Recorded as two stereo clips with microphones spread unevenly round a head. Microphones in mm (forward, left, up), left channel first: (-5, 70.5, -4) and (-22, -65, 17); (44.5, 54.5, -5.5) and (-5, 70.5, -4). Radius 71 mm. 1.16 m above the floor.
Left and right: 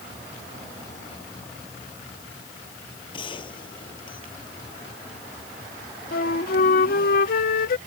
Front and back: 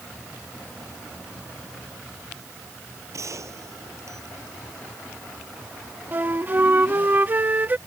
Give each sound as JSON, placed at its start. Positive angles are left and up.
{"t": 3.1, "sound": "a gunshot", "azimuth_deg": 140}
{"t": 6.1, "sound": "a flute", "azimuth_deg": 110}